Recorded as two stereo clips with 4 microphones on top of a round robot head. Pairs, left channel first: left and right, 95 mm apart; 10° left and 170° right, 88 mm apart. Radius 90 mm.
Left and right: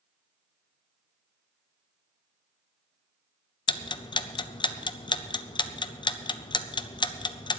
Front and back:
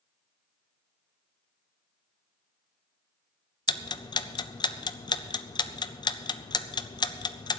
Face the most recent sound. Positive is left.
turn(degrees=50)